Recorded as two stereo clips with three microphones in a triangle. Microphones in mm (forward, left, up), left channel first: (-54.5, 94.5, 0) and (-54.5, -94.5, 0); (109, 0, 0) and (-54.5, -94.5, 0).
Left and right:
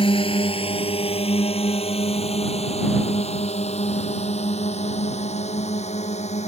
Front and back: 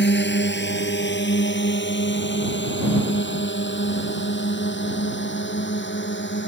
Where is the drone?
30° left; by 6.5 s 35° left.